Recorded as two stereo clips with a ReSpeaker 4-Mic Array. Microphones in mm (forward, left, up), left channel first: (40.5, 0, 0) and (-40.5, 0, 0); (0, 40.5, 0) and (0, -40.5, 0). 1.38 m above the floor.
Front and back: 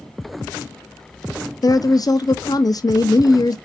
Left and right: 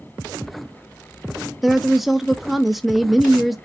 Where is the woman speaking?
Straight ahead, 0.5 m.